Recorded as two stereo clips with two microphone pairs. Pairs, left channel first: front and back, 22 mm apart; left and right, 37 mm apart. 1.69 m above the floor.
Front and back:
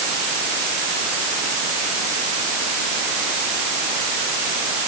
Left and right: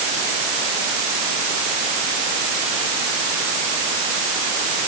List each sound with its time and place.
Only background noise.